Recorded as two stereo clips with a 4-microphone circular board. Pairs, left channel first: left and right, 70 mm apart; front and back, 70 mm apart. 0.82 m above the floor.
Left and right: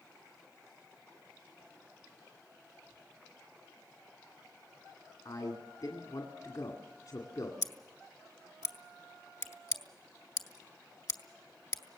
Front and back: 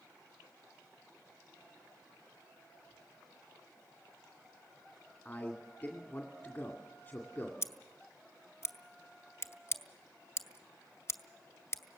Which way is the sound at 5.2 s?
65° left.